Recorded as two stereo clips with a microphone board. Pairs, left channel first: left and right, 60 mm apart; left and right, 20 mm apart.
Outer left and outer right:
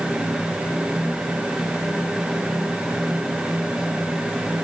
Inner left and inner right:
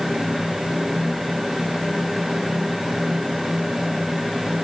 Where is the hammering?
No hammering in this recording.